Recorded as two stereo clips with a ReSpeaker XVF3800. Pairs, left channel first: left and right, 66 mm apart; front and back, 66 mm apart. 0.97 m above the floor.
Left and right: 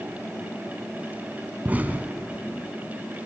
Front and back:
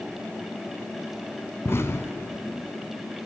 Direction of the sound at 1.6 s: 30° right.